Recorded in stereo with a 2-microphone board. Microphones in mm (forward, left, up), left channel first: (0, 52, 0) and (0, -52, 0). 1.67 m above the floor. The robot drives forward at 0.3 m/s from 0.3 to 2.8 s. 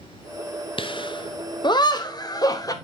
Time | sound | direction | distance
0.8 | laughter | 55° left (ahead or behind) | 1.0 m